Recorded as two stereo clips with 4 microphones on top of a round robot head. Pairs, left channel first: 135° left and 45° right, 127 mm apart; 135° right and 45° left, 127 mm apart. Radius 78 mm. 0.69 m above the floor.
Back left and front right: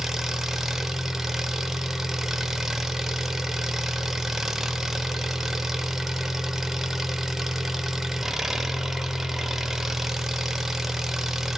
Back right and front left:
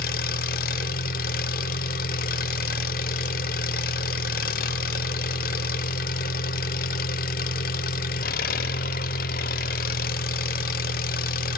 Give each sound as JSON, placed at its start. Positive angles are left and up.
{"t": 0.0, "sound": "an engine running", "azimuth_deg": -130, "distance_m": 0.8}